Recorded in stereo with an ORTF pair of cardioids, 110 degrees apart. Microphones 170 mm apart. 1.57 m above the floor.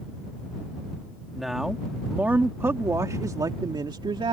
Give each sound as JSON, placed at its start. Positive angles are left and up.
{"t": 1.3, "sound": "a man speaking", "azimuth_deg": 0}